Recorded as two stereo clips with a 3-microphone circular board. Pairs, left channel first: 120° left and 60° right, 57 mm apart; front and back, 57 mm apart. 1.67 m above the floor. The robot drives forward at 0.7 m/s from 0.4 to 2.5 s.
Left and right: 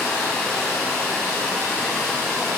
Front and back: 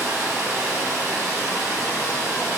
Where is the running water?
Straight behind, 3 m.